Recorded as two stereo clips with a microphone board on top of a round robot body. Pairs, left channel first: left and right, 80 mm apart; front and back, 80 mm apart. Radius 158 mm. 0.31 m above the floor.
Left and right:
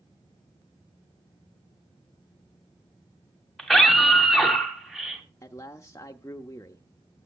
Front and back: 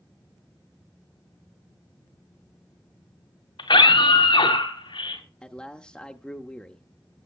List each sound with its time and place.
3.6 s a scream: straight ahead, 2.5 m; by 5.2 s 5° right, 3.5 m
5.4 s a man speaking: 75° left, 1.1 m